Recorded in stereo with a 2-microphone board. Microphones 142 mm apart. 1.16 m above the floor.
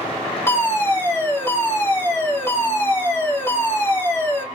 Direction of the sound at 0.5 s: 20° left (ahead or behind).